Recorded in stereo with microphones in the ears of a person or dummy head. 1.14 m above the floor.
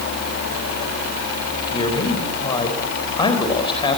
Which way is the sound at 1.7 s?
25° left (ahead or behind).